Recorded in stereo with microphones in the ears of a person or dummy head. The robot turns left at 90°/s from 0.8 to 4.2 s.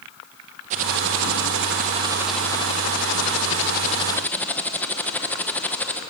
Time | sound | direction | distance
0.7 | typing on a keyboard | 50° right | 1.9 m